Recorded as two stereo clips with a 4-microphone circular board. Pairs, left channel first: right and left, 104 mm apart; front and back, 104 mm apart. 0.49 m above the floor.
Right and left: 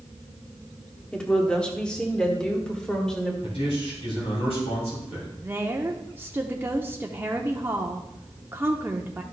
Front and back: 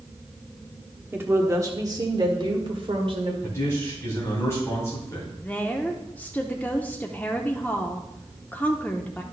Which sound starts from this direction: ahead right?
A man speaking, at 3.4 s.